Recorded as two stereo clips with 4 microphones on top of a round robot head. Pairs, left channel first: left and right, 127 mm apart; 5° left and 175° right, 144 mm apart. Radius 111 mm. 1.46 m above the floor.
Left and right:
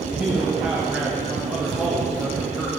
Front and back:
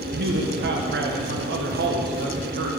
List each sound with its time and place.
0.1 s a man speaking: 175° right, 0.9 m